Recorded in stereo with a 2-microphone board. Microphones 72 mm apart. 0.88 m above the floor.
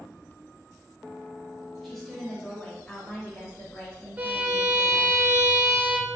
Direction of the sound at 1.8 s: Centre (ahead or behind).